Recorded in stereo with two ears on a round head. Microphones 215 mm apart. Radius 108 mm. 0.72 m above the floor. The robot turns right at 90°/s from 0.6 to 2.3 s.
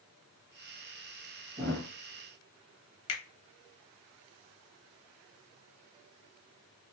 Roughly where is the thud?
Right.